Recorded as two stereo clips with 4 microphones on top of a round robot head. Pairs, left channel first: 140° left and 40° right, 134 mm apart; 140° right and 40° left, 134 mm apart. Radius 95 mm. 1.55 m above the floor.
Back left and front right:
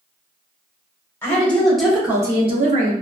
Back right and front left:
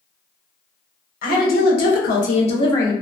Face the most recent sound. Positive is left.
turn(degrees=-65)